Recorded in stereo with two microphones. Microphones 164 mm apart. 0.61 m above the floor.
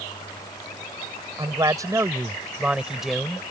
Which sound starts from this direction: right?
A man speaking, at 1.4 s.